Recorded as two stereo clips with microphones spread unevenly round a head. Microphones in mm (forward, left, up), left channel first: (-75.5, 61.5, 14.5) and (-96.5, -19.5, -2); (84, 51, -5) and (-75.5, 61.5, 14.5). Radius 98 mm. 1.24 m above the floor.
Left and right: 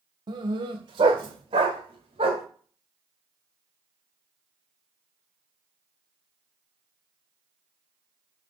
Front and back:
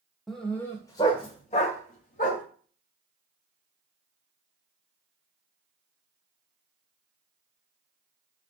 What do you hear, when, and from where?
0.3 s a dog barking: 100° right, 1.0 m; by 2.4 s 50° right, 1.9 m